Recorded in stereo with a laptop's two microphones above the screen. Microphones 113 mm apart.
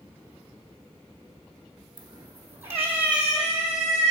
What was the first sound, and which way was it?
A cat meowing, 40° right (ahead or behind).